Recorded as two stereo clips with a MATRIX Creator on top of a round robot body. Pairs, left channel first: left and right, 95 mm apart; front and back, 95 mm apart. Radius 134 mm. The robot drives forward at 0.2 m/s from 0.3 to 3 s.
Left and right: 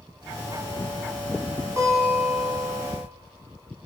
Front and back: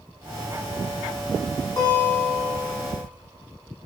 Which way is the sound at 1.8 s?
45° right.